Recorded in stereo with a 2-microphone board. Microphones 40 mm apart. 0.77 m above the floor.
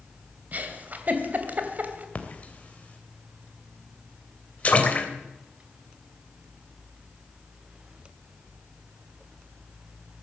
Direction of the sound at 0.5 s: 45° right (ahead or behind).